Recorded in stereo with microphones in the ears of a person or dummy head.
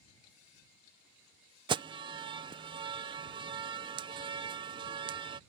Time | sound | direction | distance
1.7 | an alarm | 25° right (ahead or behind) | ?